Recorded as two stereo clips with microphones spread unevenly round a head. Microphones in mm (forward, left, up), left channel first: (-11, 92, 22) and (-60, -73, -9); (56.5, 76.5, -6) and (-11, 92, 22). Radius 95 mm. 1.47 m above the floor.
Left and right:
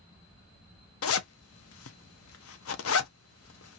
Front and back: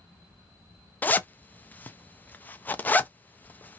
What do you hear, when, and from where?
1.0 s a zipper: 55° left, 0.5 m